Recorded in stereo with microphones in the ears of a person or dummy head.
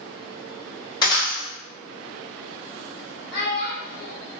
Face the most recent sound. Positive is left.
turn(degrees=65)  # may be behind; listen again after turning